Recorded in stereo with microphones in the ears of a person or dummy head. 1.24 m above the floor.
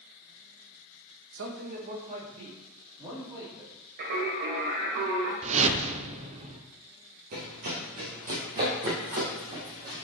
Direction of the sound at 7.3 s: 45° right (ahead or behind).